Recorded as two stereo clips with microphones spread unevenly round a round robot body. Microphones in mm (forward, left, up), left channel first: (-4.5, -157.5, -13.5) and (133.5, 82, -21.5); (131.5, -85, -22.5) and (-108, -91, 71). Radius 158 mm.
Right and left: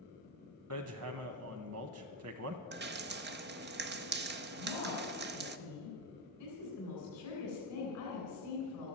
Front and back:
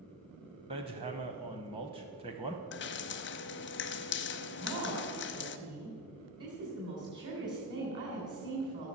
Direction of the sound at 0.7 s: 105° left.